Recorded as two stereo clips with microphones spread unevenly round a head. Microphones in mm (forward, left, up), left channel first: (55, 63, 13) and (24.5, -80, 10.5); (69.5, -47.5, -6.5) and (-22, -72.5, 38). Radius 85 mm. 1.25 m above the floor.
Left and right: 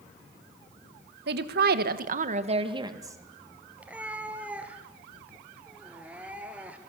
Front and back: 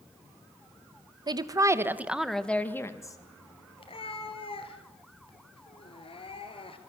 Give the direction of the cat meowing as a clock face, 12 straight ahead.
1 o'clock.